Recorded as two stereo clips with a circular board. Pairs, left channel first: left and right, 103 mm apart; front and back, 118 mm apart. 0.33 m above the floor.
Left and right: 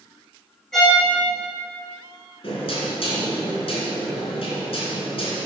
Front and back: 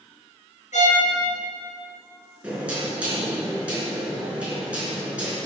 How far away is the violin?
About 3.5 m.